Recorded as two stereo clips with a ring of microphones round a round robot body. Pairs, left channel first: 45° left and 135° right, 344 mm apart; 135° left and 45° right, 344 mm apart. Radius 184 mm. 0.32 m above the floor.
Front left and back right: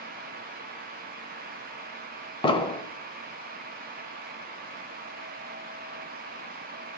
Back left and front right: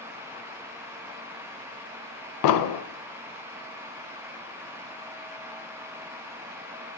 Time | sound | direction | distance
2.4 | an explosion | 120° left | 0.8 m